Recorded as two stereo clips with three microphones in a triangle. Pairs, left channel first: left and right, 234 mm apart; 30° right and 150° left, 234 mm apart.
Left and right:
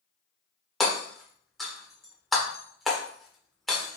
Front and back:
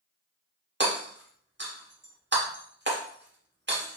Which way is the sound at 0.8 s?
Straight behind.